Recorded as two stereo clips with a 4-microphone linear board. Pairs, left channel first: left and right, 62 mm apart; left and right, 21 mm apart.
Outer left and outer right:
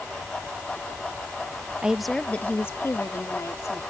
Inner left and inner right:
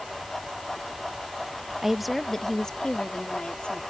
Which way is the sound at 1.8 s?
15° right (ahead or behind).